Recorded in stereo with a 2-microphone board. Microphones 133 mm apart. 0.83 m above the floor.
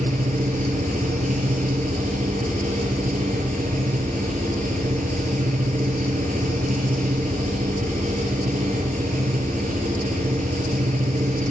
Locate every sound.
0.0 s an engine running: 80° right, 6 m